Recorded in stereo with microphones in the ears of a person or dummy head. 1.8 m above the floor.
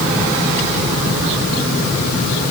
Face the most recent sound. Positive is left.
No sound to turn to.